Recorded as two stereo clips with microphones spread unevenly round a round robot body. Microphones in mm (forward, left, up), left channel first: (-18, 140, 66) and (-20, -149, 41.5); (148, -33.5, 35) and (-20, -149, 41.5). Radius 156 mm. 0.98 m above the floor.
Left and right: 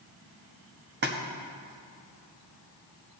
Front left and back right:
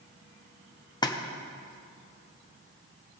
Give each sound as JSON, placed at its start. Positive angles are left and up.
{"t": 1.0, "sound": "a splash", "azimuth_deg": -35, "distance_m": 1.1}